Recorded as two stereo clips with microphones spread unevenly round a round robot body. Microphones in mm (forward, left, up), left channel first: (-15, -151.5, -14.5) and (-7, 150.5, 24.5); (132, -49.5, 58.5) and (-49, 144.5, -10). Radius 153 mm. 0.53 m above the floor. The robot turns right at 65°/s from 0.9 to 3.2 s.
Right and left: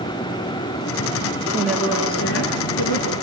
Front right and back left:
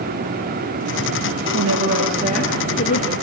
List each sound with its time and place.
1.5 s a woman speaking: 160° left, 7.5 m; by 3.1 s 95° right, 7.5 m